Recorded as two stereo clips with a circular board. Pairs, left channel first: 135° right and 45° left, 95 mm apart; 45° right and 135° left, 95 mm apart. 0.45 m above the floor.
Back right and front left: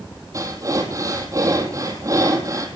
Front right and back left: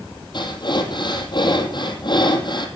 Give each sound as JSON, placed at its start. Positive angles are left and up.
{"t": 0.3, "sound": "breathing", "azimuth_deg": -10, "distance_m": 2.5}